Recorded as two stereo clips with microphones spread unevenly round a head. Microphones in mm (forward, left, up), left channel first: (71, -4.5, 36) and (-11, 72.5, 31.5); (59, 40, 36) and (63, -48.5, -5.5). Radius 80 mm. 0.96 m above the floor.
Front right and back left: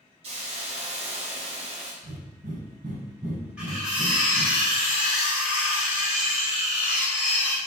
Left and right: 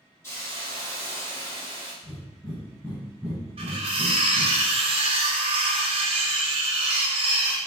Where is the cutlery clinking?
140° right, 1.4 m.